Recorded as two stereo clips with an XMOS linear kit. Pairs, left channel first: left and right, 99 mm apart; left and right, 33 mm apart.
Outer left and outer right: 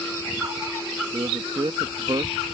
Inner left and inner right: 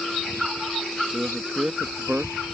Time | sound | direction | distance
1.1 | a man speaking | 50° right (ahead or behind) | ?